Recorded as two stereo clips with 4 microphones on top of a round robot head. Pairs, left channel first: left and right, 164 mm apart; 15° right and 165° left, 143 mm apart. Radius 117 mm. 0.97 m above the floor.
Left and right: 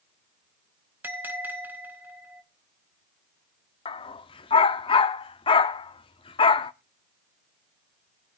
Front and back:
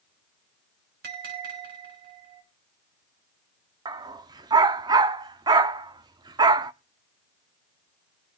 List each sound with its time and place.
1.0 s a bell: 170° right, 4 m
3.9 s a dog barking: 125° left, 0.5 m